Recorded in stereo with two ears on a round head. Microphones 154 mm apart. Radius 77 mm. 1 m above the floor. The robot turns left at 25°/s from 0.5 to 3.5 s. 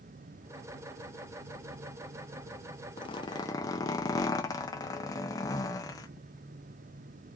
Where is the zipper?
30° left (ahead or behind), 0.8 m; by 6.1 s 20° left (ahead or behind), 0.8 m.